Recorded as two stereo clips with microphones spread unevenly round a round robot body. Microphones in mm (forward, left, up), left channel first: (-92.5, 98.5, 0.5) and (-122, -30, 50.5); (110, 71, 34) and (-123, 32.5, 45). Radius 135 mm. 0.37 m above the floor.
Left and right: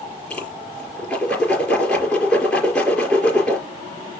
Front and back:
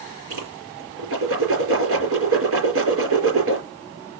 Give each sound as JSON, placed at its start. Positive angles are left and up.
{"t": 0.3, "sound": "a whoosh", "azimuth_deg": 160, "distance_m": 4.5}